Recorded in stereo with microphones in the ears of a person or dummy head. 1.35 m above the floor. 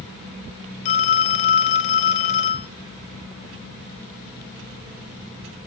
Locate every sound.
0.8 s a phone ringing: 40° left (ahead or behind), 0.7 m